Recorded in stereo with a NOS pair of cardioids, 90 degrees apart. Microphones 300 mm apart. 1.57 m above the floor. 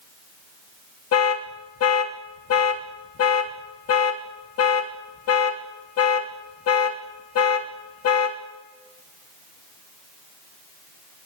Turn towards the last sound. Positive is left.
turn(degrees=55)